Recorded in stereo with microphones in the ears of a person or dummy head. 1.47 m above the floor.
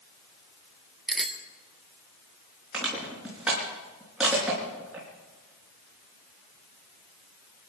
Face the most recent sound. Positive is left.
turn(degrees=-5)  # may be behind; listen again after turning